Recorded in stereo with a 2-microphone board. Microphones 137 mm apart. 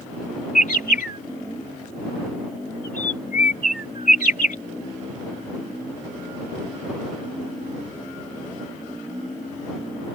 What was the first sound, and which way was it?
A bird, 75° left (ahead or behind).